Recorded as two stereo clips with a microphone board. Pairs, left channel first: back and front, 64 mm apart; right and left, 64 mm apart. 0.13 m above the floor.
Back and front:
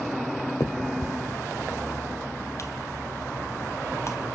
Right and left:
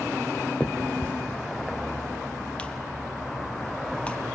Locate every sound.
0.6 s a finger snap: 155° right, 1.4 m